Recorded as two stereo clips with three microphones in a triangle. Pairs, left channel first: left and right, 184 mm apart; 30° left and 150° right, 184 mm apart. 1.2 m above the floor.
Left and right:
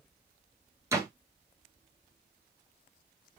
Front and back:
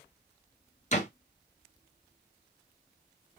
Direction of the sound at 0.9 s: 20° right.